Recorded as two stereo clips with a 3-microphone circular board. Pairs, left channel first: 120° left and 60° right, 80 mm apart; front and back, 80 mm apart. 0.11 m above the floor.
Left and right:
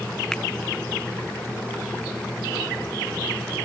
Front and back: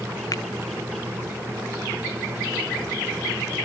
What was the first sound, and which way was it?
A finger snap, 40° left.